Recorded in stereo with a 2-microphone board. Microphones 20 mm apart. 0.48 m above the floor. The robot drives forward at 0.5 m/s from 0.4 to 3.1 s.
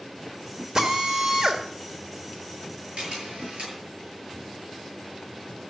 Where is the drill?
35° right (ahead or behind), 2 m; by 1.6 s 40° right (ahead or behind), 1.9 m.